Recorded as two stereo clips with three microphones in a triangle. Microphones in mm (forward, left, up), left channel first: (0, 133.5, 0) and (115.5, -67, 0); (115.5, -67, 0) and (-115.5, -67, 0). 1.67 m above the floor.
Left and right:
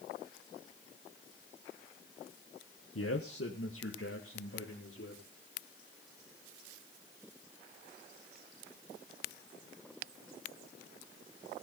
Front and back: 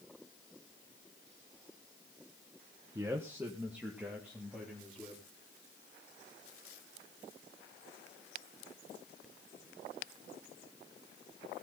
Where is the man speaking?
105° left, 1.3 m; by 5.2 s 95° left, 5 m.